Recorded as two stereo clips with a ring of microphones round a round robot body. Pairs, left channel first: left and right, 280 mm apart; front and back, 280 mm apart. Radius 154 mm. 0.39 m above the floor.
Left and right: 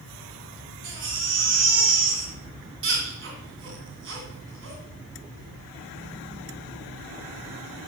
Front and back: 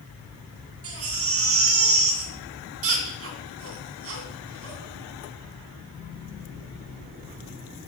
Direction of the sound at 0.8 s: 140° right.